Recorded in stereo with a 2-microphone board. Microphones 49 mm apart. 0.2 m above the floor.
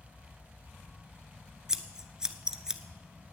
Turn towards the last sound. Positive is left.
turn(degrees=-15)  # may be behind; listen again after turning